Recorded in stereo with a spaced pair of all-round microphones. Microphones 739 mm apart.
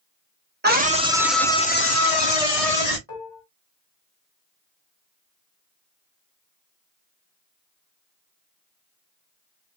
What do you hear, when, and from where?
0.6 s a scream: 15° right (ahead or behind), 1.2 m; by 3.0 s 60° left (ahead or behind), 0.7 m
3.1 s dishes clattering: 65° left (ahead or behind), 1.5 m